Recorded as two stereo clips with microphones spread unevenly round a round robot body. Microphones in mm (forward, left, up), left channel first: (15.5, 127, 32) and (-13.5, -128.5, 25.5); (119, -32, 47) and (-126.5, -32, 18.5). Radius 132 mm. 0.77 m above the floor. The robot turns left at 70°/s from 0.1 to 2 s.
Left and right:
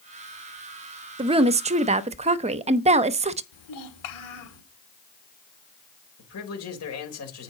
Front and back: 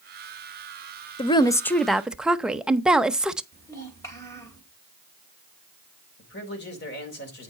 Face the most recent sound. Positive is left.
turn(degrees=55)